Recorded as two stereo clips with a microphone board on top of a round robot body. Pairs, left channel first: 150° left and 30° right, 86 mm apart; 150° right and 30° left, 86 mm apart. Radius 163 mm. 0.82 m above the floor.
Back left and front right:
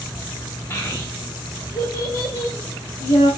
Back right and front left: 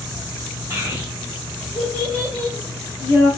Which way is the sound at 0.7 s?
95° left.